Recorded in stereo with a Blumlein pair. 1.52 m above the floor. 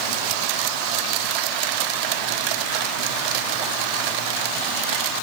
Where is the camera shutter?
I don't hear a camera shutter.